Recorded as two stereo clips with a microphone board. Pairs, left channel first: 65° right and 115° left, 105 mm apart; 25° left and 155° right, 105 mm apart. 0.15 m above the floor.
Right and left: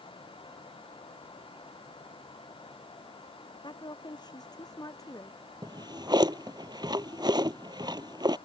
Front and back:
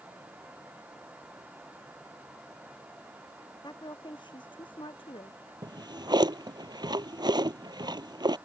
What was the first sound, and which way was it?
A woman speaking, 25° right.